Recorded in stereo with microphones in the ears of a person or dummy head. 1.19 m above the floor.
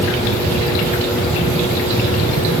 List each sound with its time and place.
Only background noise.